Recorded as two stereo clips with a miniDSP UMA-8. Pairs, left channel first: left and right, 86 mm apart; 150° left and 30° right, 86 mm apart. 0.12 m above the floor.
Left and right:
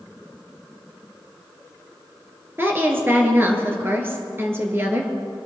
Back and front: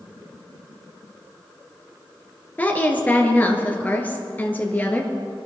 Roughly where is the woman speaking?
Behind right.